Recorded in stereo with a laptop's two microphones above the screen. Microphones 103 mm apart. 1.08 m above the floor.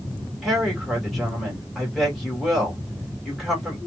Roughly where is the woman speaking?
Centre.